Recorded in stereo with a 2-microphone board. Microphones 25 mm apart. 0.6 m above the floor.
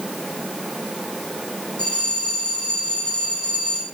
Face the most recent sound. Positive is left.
turn(degrees=50)  # may be behind; listen again after turning